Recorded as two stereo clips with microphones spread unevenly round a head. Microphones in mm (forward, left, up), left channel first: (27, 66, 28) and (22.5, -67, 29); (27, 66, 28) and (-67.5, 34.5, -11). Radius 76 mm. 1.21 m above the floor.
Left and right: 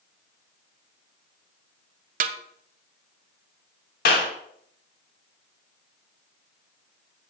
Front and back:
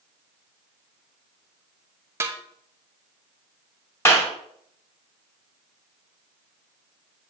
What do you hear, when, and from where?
2.2 s a snare drum: 80° right, 0.6 m
4.0 s a clap: 85° left, 2.5 m